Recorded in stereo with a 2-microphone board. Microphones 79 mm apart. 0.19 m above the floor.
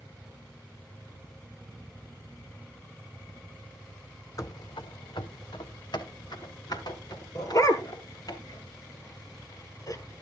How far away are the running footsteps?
About 0.5 m.